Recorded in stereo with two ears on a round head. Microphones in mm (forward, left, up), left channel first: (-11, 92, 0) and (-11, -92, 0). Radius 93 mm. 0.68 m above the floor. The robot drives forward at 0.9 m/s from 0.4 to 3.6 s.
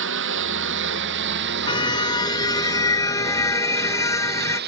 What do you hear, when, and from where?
0.0 s a lawn mower: 65° right (ahead or behind); by 4.7 s 55° right (ahead or behind)
1.7 s a car horn: 25° left (ahead or behind); by 4.6 s 15° left (ahead or behind)